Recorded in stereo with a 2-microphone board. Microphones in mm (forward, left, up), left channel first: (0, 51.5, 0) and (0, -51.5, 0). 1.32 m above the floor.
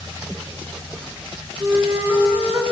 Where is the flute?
25° right (ahead or behind), 1.0 m.